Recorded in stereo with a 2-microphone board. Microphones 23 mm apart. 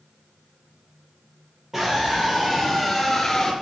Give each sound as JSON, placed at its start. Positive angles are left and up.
{"t": 1.7, "sound": "a scream", "side_deg": -10, "distance_m": 3.0}